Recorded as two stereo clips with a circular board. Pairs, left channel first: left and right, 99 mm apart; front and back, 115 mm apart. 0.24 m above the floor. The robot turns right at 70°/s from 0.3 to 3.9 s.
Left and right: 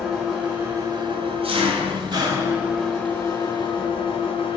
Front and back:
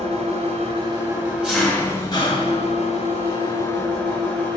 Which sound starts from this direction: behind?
An engine running, at 0.0 s.